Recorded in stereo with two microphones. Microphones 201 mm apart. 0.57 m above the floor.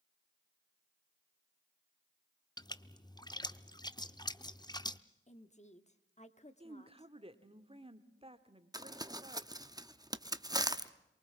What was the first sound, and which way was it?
A splash, 20° left (ahead or behind).